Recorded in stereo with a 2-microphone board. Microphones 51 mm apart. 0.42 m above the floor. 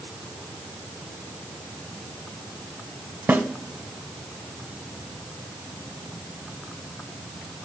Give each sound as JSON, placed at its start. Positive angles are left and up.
{"t": 3.3, "sound": "a snare drum", "side_deg": -30, "distance_m": 1.1}